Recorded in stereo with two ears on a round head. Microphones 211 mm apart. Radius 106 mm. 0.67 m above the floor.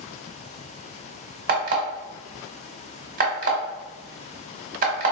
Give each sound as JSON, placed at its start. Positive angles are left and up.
{"t": 1.5, "sound": "an alarm clock", "side_deg": -35, "distance_m": 1.0}